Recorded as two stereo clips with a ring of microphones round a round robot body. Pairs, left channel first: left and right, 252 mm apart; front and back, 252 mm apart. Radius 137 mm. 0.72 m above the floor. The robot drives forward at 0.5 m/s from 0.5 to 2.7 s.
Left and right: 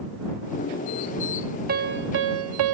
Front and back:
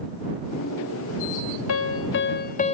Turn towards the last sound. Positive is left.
turn(degrees=-70)